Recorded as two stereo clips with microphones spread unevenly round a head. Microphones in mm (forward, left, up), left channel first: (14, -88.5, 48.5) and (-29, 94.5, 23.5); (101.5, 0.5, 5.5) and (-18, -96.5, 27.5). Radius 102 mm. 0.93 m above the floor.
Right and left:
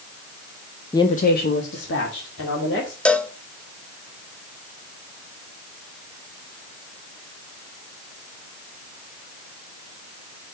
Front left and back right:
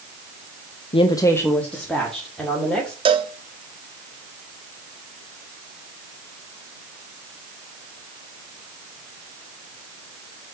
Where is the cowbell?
170° right, 0.8 m.